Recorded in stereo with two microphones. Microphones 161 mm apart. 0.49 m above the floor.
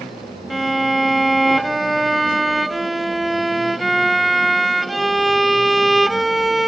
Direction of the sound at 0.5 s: Centre (ahead or behind).